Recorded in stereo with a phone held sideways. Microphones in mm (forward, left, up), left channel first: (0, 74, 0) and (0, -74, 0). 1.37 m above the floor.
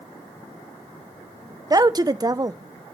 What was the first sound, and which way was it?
A woman speaking, 25° right (ahead or behind).